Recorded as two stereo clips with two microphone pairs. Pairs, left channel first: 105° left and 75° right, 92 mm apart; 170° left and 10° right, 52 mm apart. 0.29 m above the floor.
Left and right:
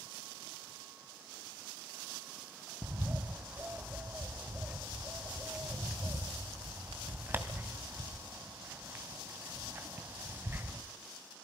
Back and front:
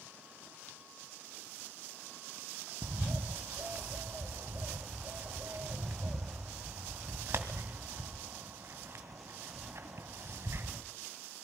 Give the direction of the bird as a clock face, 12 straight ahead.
12 o'clock.